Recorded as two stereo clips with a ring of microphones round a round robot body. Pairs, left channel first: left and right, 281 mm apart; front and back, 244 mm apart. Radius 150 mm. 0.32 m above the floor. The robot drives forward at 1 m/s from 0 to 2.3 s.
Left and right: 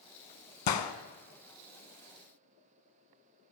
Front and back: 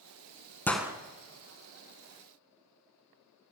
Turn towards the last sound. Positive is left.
turn(degrees=155)